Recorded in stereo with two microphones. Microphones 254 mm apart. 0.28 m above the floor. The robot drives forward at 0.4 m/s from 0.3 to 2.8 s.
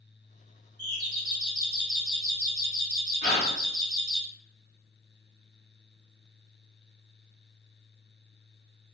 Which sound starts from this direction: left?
A gasp, at 3.2 s.